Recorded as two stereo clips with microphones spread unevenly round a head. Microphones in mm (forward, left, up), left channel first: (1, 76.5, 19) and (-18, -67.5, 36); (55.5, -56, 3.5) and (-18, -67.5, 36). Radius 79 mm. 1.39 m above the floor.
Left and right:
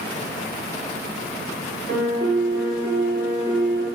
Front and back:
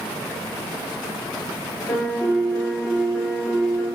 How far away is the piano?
About 2 m.